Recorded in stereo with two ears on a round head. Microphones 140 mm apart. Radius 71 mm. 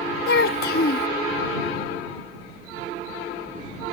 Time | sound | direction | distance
0.3 | a child speaking | 60° left (ahead or behind) | ?